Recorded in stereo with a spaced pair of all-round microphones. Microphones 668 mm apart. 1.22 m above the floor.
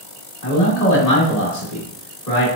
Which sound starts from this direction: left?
A man speaking, at 0.4 s.